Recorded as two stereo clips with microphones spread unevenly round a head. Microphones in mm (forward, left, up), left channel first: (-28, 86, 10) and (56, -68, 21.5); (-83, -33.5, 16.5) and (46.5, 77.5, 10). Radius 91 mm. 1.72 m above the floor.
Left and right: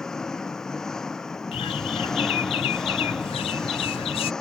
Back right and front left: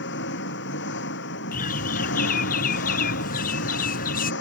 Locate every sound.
0.0 s an engine running: 155° right
1.5 s a bird: straight behind